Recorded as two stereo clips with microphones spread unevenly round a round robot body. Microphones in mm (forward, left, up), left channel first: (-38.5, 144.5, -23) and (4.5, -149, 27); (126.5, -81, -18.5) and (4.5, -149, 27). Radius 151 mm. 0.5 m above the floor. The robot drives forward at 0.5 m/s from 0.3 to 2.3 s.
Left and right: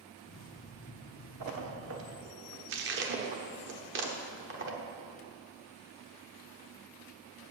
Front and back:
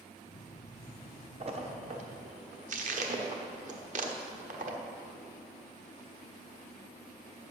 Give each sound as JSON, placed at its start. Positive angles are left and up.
{"t": 1.4, "sound": "a splash", "azimuth_deg": -105, "distance_m": 1.2}